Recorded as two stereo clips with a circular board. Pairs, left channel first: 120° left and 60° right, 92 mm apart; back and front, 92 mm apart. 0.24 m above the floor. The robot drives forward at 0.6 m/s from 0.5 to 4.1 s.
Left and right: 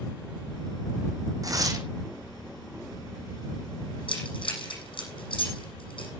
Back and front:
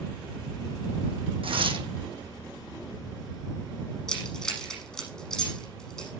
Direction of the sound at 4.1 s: 100° left.